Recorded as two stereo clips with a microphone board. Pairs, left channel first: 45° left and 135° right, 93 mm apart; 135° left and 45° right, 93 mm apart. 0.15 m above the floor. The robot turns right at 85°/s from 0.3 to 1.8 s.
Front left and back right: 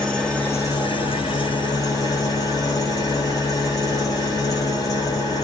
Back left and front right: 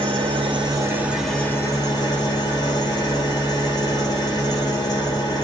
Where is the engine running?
35° right, 2.5 m; by 5.4 s 95° left, 2.5 m.